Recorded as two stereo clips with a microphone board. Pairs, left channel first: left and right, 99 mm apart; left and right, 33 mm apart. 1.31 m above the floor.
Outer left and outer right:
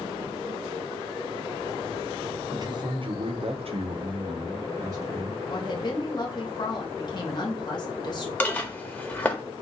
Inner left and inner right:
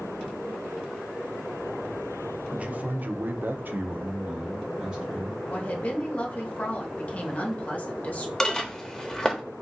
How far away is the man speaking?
About 0.7 m.